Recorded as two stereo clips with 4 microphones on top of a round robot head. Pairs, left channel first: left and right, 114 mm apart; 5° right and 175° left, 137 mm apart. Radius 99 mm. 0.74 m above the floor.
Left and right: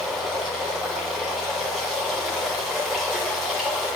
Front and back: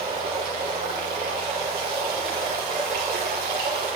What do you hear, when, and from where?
0.0 s running water: straight behind, 1.8 m